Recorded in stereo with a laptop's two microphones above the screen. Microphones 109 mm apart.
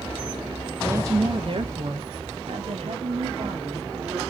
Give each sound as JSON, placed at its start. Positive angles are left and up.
{"t": 0.8, "sound": "a woman speaking", "side_deg": -15, "distance_m": 0.7}